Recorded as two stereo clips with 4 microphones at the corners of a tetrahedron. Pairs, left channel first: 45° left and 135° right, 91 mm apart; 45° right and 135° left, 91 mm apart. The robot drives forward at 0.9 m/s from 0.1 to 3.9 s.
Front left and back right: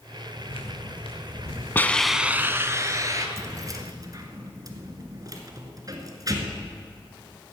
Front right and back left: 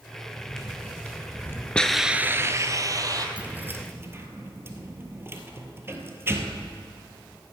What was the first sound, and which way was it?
Footsteps, 40° left.